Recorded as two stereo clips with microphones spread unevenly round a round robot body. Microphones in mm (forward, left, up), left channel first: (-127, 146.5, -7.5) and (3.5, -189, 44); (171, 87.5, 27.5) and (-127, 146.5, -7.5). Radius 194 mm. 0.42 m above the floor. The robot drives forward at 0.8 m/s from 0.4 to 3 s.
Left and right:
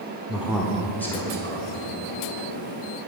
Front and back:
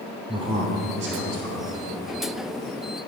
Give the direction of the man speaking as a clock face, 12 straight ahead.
6 o'clock.